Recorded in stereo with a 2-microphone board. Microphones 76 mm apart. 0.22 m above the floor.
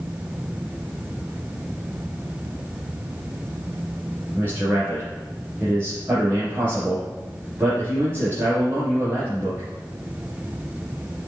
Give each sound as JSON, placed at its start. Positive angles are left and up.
{"t": 4.3, "sound": "a man speaking", "side_deg": -25, "distance_m": 3.0}